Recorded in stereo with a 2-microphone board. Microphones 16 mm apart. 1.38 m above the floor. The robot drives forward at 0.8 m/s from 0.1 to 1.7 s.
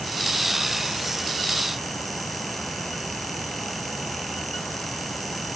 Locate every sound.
Only background noise.